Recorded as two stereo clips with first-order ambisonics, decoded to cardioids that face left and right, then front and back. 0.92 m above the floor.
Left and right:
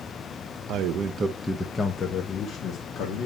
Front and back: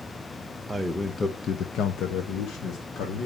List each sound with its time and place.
0.7 s a man speaking: 100° right, 1.0 m; by 3.3 s 40° left, 2.5 m